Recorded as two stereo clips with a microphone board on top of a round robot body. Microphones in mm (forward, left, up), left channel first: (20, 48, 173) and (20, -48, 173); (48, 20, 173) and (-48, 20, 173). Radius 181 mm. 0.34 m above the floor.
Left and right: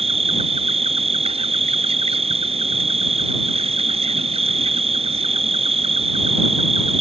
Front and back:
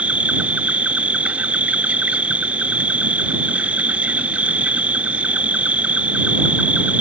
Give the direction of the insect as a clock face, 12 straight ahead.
3 o'clock.